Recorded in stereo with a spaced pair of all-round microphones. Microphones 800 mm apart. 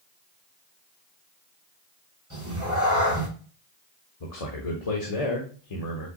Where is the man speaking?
45° left (ahead or behind), 0.9 m.